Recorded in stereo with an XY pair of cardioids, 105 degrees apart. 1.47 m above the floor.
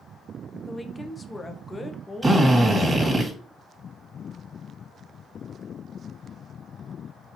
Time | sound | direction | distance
0.7 | a woman speaking | 20° left | 0.8 m
2.2 | a drill | 15° right | 2 m